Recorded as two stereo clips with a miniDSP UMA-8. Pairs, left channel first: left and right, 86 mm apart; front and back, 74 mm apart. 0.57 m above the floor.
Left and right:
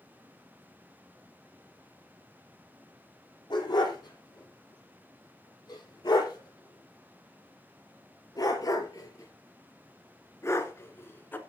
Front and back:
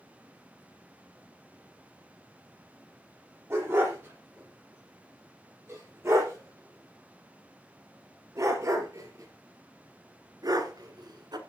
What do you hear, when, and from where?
3.5 s a dog barking: 125° left, 7 m; by 11.4 s 155° left, 1.9 m